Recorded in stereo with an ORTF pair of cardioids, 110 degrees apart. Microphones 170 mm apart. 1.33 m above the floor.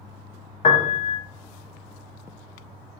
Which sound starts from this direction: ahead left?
A piano, at 0.6 s.